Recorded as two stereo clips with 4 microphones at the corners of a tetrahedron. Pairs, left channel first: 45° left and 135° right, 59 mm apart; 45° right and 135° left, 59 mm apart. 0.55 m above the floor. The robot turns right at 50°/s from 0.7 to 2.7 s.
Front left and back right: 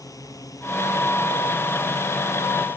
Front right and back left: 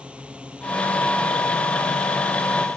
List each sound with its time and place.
0.0 s a drone: 65° left; by 2.8 s 165° left